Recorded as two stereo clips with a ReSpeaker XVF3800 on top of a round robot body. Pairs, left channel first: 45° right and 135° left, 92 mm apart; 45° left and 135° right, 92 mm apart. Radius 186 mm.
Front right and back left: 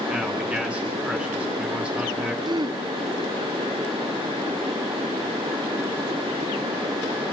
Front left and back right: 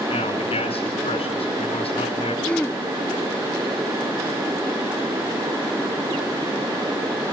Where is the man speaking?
55° left, 5 m.